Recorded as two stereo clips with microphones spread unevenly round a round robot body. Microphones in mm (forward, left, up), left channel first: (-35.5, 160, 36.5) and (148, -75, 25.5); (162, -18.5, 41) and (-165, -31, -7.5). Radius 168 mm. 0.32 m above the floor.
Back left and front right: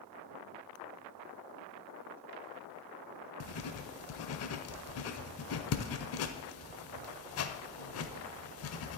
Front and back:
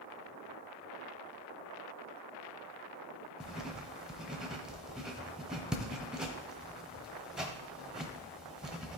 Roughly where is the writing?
Left.